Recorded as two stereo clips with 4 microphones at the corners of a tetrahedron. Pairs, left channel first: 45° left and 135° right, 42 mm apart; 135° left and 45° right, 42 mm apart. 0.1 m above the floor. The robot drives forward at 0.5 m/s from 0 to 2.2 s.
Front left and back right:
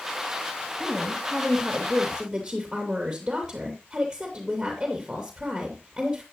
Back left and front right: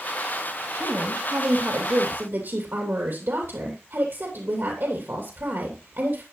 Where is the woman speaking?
45° right, 3 m; by 6.2 s 55° right, 2.5 m.